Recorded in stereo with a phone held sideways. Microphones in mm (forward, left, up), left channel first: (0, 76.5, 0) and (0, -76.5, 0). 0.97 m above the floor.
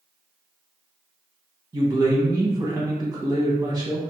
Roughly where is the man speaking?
Right.